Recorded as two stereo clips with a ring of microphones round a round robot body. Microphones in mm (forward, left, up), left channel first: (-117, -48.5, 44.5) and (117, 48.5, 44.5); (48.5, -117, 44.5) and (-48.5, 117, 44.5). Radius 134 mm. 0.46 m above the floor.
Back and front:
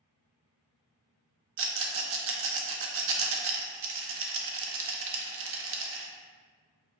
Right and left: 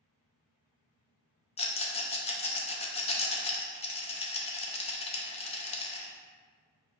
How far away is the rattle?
About 0.6 m.